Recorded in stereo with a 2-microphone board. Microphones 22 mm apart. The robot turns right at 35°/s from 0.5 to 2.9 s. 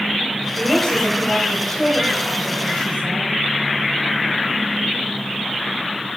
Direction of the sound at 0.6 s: 20° left.